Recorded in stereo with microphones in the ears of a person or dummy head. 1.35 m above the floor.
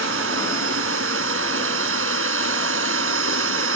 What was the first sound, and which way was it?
A machine running, 85° right.